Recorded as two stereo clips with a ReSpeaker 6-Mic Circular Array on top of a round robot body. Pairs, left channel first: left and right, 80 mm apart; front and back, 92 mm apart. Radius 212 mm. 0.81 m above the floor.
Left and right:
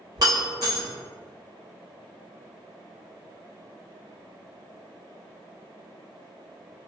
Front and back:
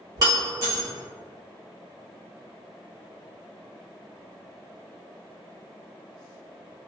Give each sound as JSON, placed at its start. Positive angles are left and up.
{"t": 0.2, "sound": "breaking glass", "azimuth_deg": -130, "distance_m": 1.1}